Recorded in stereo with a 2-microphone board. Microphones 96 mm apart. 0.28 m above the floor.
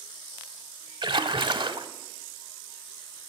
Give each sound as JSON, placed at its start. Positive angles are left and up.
{"t": 1.0, "sound": "a splash", "side_deg": -60, "distance_m": 0.6}